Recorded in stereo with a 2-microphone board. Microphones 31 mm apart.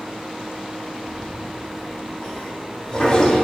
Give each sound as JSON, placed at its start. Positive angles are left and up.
{"t": 1.1, "sound": "a toilet flushing", "side_deg": 25, "distance_m": 1.4}